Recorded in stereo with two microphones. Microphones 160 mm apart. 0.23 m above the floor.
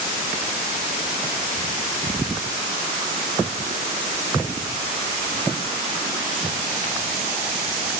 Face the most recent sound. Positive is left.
No sound to turn to.